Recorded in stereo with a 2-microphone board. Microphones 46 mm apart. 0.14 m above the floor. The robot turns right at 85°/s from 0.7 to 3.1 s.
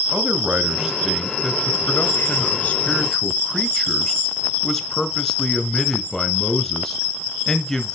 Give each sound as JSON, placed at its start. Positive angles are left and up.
{"t": 0.1, "sound": "a man speaking", "azimuth_deg": -35, "distance_m": 1.4}